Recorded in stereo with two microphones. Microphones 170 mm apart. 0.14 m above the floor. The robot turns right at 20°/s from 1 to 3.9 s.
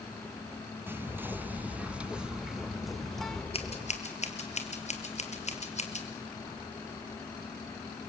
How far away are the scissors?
About 2.5 m.